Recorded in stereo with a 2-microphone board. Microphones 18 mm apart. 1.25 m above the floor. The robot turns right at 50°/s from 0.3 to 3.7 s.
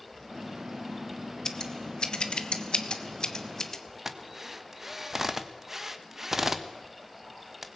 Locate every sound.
1.4 s scissors: 45° left (ahead or behind), 1.4 m; by 3.8 s 20° left (ahead or behind), 1.4 m
4.0 s a drill: 15° right (ahead or behind), 1.3 m